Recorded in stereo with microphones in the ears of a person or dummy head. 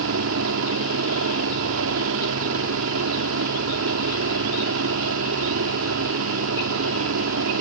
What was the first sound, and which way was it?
A helicopter, 70° right (ahead or behind).